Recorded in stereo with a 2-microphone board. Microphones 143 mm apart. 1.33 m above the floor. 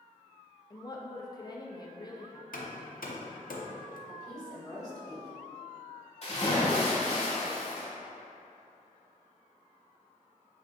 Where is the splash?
50° left (ahead or behind), 1.6 m.